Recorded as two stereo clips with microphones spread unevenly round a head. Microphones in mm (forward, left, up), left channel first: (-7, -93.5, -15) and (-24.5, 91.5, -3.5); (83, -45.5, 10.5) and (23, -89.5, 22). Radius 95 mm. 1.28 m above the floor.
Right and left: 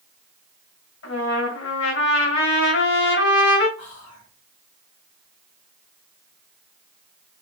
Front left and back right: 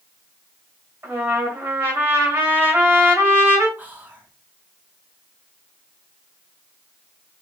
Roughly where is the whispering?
Right.